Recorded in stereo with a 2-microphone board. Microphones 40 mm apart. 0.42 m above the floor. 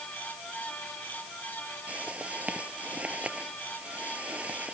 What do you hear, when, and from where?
1.9 s a whoosh: 35° right (ahead or behind)